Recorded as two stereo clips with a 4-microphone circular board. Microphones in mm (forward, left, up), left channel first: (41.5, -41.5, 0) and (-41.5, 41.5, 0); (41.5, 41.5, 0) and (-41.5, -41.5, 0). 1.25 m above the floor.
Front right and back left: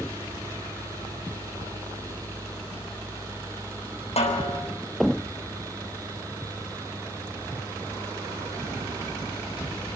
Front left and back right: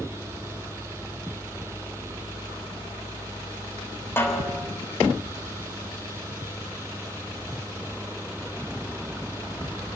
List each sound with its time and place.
4.2 s a snare drum: 25° right, 6.5 m